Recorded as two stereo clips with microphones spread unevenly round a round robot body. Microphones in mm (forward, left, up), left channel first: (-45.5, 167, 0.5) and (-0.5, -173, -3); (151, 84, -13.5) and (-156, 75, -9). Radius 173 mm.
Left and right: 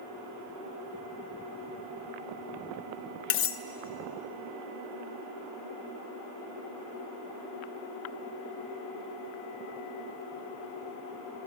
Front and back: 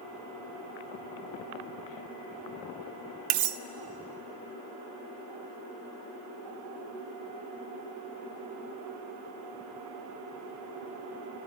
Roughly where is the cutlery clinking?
Behind left.